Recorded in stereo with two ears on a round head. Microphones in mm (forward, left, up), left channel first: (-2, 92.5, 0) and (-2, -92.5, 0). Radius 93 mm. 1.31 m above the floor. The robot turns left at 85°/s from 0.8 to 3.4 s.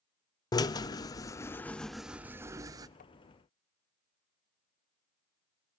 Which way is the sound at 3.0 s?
40° left (ahead or behind).